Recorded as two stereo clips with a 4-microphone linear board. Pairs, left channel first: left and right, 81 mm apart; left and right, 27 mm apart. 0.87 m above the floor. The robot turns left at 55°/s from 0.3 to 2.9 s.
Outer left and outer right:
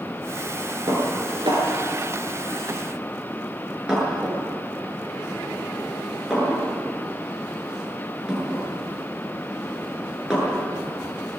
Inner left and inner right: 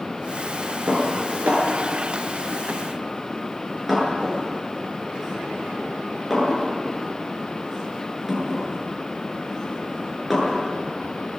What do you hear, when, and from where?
0.9 s dishes clattering: 60° right (ahead or behind), 7.5 m; by 10.6 s 10° right (ahead or behind), 7.5 m